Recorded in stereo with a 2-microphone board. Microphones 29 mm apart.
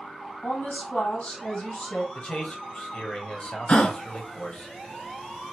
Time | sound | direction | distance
0.4 | a woman speaking | 60° left (ahead or behind) | 3 m
2.1 | a man speaking | 40° left (ahead or behind) | 1.4 m
3.7 | a gasp | 40° left (ahead or behind) | 0.6 m